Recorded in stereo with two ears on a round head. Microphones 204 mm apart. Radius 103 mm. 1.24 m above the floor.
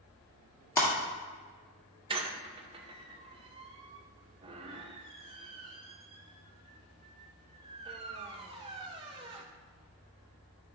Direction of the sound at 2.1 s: 25° right (ahead or behind).